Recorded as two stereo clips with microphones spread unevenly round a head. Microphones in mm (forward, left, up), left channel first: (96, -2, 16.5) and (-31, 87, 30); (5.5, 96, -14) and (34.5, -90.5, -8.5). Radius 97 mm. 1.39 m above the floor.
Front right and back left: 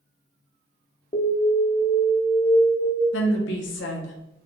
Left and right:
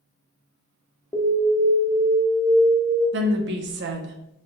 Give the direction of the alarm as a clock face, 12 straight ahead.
11 o'clock.